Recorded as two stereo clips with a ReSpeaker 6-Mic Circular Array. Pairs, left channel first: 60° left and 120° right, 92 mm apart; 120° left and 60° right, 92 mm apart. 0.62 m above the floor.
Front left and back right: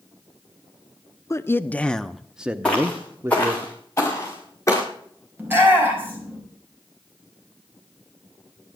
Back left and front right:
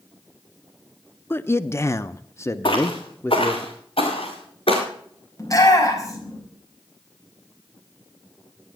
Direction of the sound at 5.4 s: 175° left.